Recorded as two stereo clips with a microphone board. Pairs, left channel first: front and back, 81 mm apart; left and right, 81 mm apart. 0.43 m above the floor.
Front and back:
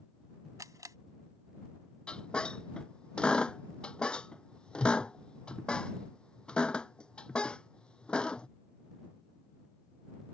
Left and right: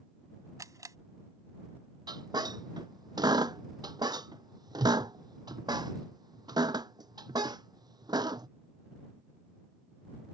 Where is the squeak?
75° right.